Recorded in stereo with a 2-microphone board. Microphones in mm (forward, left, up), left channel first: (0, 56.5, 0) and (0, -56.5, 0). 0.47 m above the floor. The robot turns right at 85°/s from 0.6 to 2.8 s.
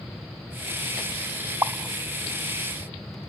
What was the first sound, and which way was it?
A pop, 20° right (ahead or behind).